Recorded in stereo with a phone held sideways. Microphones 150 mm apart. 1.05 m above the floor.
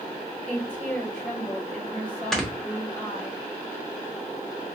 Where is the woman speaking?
10° left (ahead or behind), 2.5 m.